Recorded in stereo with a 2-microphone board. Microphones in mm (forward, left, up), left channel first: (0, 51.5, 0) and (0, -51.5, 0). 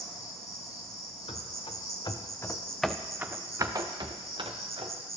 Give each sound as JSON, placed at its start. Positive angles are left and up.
{"t": 0.0, "sound": "an insect", "side_deg": -75, "distance_m": 0.9}
{"t": 1.3, "sound": "running footsteps", "side_deg": 65, "distance_m": 0.9}